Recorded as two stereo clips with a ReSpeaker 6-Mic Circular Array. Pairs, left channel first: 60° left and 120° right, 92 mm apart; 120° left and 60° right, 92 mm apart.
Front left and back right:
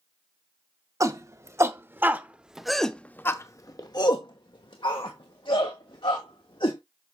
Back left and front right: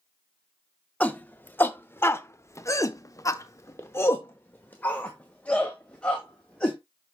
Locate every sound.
1.0 s a shout: 170° right, 1.4 m; by 6.8 s 40° left, 2.5 m